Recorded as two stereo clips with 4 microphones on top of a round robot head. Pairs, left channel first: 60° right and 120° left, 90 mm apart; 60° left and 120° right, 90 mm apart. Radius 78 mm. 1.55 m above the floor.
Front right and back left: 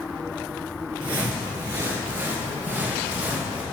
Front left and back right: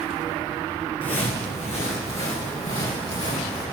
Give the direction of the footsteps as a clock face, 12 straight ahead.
9 o'clock.